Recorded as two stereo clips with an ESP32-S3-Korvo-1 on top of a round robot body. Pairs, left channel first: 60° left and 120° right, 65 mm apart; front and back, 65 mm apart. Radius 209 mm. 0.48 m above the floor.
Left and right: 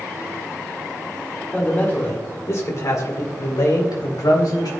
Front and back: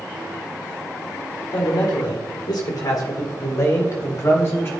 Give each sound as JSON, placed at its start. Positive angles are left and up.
{"t": 1.5, "sound": "a man speaking", "azimuth_deg": -15, "distance_m": 2.0}